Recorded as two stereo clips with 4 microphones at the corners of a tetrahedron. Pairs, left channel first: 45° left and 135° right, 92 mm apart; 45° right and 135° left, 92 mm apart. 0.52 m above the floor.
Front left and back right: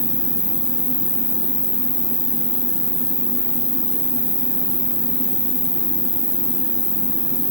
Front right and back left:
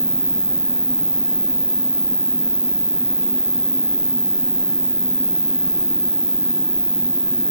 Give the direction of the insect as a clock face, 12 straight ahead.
10 o'clock.